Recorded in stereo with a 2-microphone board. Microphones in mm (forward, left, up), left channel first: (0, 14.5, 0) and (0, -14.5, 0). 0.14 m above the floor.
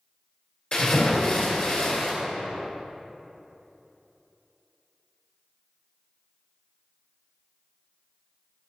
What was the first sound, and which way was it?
A splash, 50° left (ahead or behind).